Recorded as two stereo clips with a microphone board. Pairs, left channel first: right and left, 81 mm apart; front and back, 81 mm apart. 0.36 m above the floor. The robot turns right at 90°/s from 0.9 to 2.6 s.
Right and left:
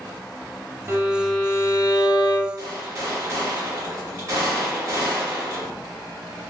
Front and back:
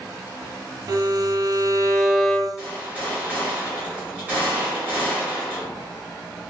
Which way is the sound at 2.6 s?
115° left.